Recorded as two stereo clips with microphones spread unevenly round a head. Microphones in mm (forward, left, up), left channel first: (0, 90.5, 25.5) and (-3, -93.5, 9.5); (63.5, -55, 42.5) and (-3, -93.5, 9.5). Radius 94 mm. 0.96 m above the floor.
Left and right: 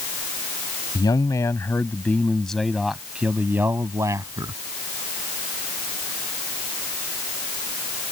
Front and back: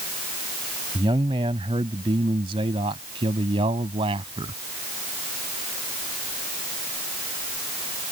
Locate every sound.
0.9 s a man speaking: 160° left; by 4.5 s 160° right